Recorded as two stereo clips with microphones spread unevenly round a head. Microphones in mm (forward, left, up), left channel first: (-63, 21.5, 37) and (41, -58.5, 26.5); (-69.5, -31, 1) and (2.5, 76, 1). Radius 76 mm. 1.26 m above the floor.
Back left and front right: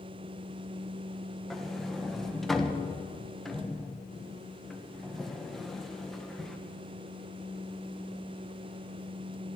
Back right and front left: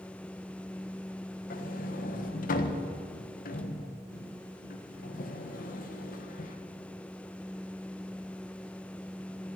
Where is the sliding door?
130° right, 1.3 m.